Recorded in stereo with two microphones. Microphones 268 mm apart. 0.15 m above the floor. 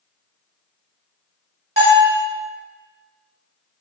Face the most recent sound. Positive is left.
turn(degrees=-30)  # may be behind; listen again after turning